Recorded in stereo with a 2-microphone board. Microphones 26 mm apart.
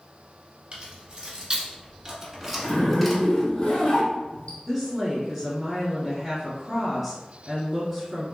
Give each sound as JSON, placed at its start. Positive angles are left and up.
{"t": 0.7, "sound": "keys jangling", "side_deg": -45, "distance_m": 1.5}
{"t": 2.6, "sound": "a zipper", "side_deg": 55, "distance_m": 1.9}
{"t": 4.7, "sound": "a woman speaking", "side_deg": 0, "distance_m": 1.5}